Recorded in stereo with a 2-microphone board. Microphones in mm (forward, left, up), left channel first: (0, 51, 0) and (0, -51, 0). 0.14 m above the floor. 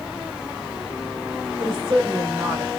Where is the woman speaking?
50° right (ahead or behind), 3 m; by 2.7 s 25° right (ahead or behind), 2.5 m.